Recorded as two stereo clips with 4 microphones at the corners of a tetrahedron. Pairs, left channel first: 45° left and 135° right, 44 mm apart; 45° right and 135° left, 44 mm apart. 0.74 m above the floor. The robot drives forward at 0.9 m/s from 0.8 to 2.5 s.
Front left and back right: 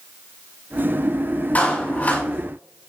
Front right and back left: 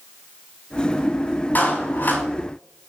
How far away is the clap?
About 5 m.